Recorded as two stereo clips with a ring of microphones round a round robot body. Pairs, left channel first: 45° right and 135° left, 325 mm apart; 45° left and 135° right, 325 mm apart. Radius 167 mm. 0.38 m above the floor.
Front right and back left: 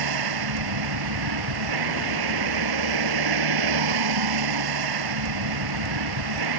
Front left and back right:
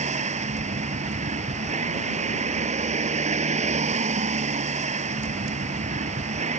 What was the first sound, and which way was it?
A vehicle, 155° left.